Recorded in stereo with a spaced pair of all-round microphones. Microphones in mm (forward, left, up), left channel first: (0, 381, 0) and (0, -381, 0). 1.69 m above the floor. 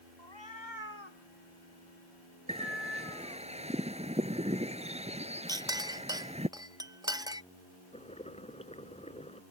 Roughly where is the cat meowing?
Left.